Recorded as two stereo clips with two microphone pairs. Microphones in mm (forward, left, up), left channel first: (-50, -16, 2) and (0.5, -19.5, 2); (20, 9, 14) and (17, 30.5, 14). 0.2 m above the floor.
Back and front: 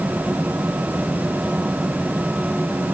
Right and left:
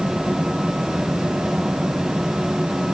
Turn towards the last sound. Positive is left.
No sound to turn to.